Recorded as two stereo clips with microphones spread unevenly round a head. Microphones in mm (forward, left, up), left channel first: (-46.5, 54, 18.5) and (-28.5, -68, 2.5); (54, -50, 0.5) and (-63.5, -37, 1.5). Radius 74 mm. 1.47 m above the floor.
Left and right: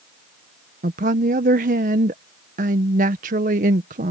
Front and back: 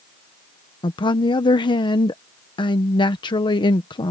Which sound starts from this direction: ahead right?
A woman speaking, at 0.8 s.